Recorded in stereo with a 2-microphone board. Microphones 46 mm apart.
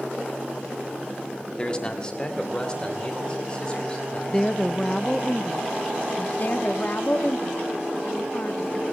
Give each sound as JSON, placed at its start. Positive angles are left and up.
{"t": 1.6, "sound": "a man speaking", "side_deg": 25, "distance_m": 1.7}
{"t": 4.3, "sound": "a woman speaking", "side_deg": 15, "distance_m": 0.6}
{"t": 6.4, "sound": "a woman speaking", "side_deg": 50, "distance_m": 1.3}